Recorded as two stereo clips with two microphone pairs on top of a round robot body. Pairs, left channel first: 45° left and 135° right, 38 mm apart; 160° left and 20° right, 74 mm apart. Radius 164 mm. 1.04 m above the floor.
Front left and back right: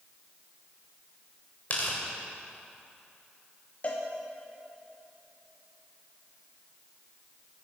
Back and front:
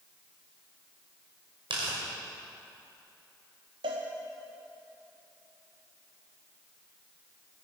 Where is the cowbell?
15° right, 0.7 m.